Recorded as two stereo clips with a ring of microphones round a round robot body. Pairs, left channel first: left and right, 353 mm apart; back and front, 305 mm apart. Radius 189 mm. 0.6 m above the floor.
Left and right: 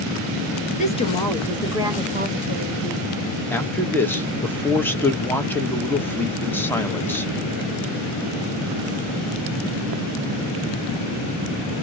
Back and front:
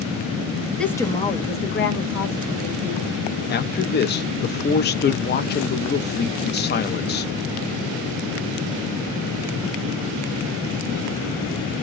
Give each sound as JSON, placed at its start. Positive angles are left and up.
{"t": 0.8, "sound": "a woman speaking", "azimuth_deg": 95, "distance_m": 0.8}
{"t": 3.5, "sound": "a man speaking", "azimuth_deg": 170, "distance_m": 0.6}